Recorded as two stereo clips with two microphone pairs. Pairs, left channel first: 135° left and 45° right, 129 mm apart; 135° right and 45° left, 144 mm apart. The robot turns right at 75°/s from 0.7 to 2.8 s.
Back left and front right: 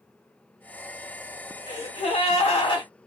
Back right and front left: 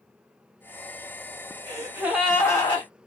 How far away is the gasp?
About 2 m.